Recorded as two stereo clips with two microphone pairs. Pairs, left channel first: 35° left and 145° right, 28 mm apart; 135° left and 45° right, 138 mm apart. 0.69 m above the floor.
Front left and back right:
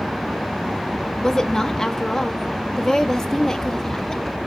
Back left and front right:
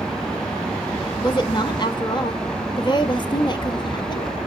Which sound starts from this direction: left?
A woman speaking, at 1.2 s.